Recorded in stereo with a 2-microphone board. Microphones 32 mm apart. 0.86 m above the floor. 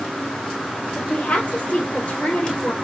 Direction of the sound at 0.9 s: 45° left (ahead or behind).